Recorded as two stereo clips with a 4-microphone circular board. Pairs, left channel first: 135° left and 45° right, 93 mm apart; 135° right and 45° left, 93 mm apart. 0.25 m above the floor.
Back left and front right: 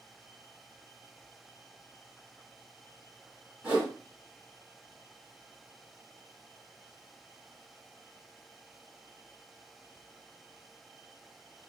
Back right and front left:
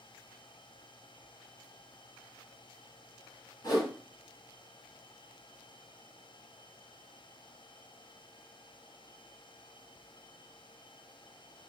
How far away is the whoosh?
About 1.6 m.